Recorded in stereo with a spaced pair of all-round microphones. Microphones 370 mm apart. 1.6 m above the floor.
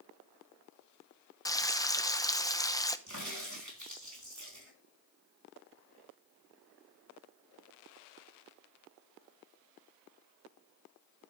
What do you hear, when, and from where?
1.4 s frying: 10° left (ahead or behind), 0.6 m
3.1 s a crack: 50° right (ahead or behind), 3.5 m